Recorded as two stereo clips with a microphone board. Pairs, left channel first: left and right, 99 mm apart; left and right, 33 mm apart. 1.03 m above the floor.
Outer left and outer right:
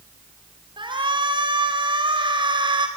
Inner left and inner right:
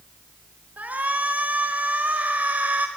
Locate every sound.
0.8 s a shout: 55° right (ahead or behind), 5 m